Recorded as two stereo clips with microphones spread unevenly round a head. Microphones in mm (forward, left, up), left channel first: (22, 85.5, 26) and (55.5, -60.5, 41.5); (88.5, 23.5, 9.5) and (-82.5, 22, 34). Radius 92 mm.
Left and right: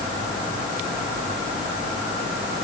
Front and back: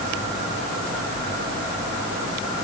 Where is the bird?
I don't hear a bird.